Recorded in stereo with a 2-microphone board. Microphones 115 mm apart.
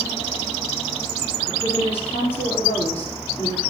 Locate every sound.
1.5 s a woman speaking: 75° left (ahead or behind), 6 m